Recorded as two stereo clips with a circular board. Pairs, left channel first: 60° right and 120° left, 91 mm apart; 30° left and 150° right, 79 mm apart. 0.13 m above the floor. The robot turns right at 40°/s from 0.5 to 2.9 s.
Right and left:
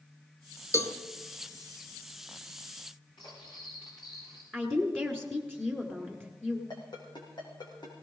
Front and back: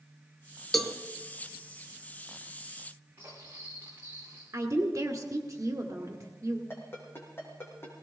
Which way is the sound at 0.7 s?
60° right.